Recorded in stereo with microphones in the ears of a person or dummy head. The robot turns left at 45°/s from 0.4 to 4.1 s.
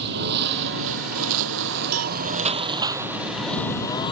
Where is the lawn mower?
60° right (ahead or behind); by 4.1 s 25° left (ahead or behind).